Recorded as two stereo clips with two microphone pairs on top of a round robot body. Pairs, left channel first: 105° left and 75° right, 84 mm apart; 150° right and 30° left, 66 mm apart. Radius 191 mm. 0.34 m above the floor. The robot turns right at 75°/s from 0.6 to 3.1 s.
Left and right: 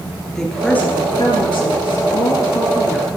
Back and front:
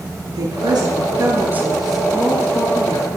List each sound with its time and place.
0.3 s a woman speaking: 25° left, 10 m; by 3.2 s 150° right, 10 m